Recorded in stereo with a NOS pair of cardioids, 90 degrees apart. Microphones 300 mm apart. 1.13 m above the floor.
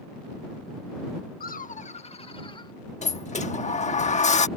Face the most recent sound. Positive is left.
turn(degrees=25)